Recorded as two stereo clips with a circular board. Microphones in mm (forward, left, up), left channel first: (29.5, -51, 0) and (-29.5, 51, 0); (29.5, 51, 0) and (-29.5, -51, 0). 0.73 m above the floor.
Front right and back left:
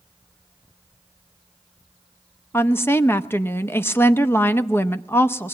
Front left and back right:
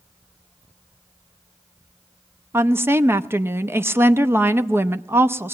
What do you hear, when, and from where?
2.5 s a woman speaking: 90° right, 0.7 m